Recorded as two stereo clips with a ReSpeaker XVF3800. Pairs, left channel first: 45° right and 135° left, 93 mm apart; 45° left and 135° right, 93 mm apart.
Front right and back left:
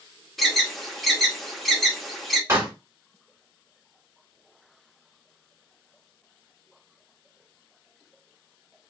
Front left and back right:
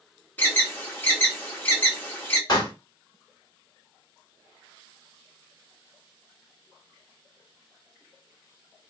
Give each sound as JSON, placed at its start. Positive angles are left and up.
{"t": 0.4, "sound": "an alarm", "azimuth_deg": 40, "distance_m": 0.9}
{"t": 2.5, "sound": "a pop", "azimuth_deg": 80, "distance_m": 1.5}